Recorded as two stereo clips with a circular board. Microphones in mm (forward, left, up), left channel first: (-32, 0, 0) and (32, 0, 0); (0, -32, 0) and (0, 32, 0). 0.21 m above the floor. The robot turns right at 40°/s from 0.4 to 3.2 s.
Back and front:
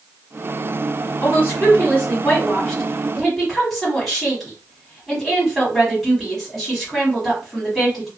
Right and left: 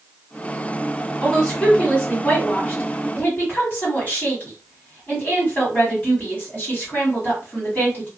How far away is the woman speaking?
About 1.6 m.